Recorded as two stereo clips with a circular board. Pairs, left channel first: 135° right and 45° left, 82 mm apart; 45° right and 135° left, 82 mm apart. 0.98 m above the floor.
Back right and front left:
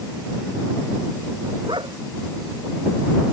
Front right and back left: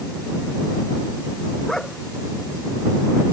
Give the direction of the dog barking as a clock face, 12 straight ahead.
11 o'clock.